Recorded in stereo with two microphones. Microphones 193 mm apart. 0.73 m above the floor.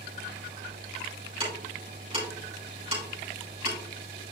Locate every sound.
1.4 s ticking: 30° right (ahead or behind), 3.5 m